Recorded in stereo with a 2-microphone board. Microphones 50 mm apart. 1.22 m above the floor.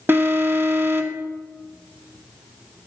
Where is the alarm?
45° right (ahead or behind), 1.5 m.